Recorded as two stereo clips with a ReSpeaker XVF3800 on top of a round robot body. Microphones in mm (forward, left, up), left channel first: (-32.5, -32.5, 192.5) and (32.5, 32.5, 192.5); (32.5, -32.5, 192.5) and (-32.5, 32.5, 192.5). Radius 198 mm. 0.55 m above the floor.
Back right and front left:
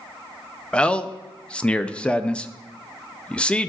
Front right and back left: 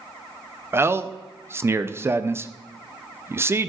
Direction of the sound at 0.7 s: 160° left.